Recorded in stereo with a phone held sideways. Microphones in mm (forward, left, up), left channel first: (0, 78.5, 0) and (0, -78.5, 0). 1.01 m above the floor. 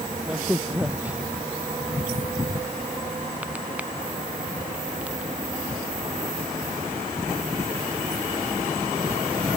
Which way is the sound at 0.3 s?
10° right (ahead or behind).